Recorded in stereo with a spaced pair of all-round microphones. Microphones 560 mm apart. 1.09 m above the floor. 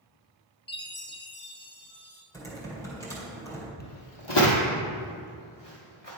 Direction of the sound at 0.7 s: 20° left (ahead or behind).